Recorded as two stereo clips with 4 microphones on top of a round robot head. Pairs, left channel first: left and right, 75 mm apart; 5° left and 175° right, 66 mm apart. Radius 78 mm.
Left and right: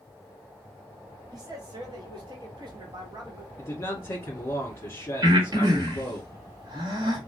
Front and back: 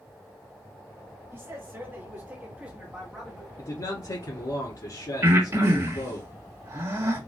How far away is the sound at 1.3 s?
About 1.9 m.